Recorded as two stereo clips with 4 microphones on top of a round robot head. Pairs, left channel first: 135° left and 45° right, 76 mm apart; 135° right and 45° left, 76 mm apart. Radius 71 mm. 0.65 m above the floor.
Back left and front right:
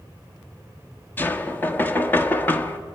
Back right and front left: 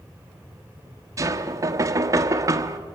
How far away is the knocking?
About 1.4 m.